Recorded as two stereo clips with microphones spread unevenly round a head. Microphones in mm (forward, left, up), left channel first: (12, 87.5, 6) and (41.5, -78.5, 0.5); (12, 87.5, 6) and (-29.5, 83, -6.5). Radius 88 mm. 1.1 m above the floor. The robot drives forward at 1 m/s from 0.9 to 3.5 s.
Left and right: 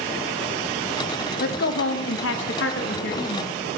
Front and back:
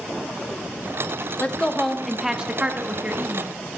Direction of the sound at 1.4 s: 70° left.